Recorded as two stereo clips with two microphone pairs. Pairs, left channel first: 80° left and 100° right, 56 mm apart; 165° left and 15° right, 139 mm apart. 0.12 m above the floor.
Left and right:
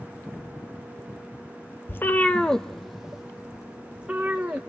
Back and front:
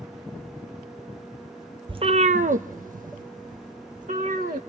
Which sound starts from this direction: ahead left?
A cat meowing, at 1.9 s.